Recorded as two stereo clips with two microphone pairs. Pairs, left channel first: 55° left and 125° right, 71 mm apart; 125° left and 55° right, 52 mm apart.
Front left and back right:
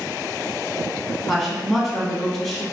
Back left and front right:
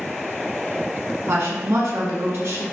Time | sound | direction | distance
1.3 | a woman speaking | 20° right | 1.0 m